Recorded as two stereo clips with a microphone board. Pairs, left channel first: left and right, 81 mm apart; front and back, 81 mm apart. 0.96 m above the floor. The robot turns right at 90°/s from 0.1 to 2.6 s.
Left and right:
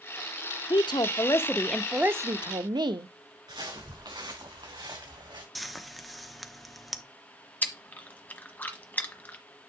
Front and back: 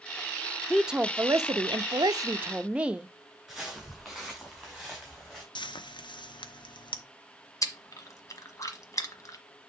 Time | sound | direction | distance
0.7 | a woman speaking | 85° left | 0.8 m
3.5 | footsteps | 90° right | 5.5 m
5.5 | frying | straight ahead | 0.9 m
7.6 | chewing | 30° left | 1.2 m